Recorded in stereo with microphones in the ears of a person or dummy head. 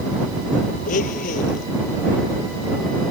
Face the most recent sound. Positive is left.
turn(degrees=45)  # may be behind; listen again after turning